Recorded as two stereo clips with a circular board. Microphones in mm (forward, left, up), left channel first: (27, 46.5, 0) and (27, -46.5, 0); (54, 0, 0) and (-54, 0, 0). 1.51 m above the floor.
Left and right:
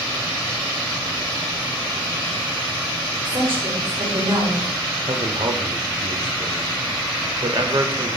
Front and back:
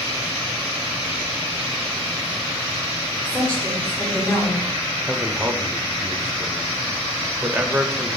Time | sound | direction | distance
3.2 | a woman speaking | 75° right | 4 m
5.1 | a man speaking | 105° right | 0.9 m